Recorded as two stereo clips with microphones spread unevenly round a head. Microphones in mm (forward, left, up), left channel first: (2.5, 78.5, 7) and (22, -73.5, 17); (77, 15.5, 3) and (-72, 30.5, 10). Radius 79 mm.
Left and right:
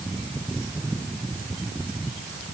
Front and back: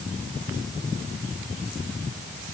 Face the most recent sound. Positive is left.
No sound to turn to.